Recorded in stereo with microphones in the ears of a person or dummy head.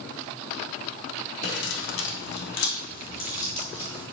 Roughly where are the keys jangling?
Left.